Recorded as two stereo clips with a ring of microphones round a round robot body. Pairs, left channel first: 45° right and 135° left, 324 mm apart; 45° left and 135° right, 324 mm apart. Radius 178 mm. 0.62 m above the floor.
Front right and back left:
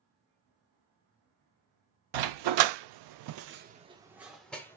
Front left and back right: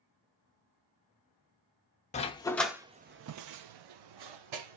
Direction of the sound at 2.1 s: 115° left.